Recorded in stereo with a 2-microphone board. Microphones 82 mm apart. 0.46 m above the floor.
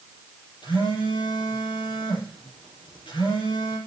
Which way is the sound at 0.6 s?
85° left.